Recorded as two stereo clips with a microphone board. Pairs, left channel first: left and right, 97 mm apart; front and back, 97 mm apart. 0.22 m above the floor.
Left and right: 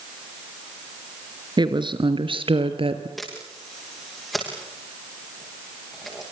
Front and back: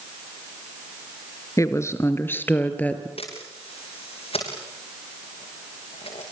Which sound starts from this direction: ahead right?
A woman speaking, at 1.6 s.